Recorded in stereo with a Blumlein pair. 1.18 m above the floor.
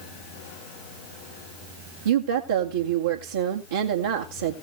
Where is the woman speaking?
65° right, 2 m.